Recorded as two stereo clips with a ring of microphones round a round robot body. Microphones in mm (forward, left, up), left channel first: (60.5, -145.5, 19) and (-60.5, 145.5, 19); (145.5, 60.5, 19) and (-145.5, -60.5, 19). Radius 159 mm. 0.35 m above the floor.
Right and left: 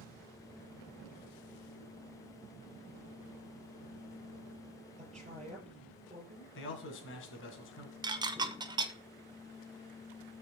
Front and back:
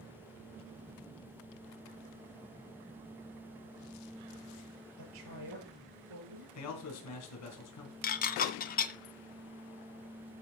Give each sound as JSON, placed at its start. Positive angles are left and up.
{"t": 5.0, "sound": "a woman speaking", "azimuth_deg": -175, "distance_m": 7.0}
{"t": 6.5, "sound": "a man speaking", "azimuth_deg": -15, "distance_m": 3.0}
{"t": 8.0, "sound": "dishes clattering", "azimuth_deg": 50, "distance_m": 0.6}